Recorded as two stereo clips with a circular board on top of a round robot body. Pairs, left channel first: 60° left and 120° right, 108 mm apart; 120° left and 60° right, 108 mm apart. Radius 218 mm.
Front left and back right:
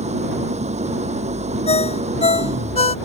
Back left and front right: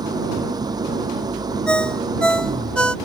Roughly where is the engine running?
Behind right.